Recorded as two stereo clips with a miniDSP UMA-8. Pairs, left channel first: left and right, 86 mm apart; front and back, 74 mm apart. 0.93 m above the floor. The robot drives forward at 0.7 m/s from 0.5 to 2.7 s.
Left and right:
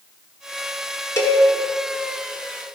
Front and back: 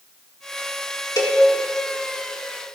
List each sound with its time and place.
1.2 s a cowbell: 35° left, 1.0 m; by 1.4 s 40° left, 0.8 m